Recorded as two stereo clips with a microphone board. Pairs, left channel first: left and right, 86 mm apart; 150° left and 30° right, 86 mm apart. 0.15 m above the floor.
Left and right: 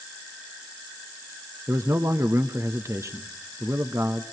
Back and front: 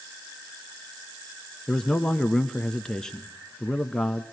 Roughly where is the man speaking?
Behind right.